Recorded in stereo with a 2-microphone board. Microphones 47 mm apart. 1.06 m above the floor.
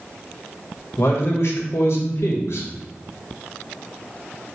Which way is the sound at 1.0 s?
65° left (ahead or behind).